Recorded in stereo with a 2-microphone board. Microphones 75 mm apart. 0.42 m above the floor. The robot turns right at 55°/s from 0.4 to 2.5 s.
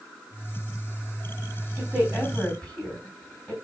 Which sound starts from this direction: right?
A woman speaking, at 1.8 s.